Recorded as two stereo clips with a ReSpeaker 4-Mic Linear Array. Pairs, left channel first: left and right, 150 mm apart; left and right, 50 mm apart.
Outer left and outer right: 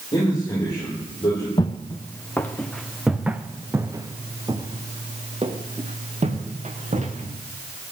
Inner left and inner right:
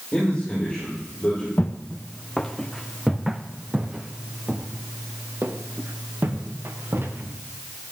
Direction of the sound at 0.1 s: 25° left (ahead or behind).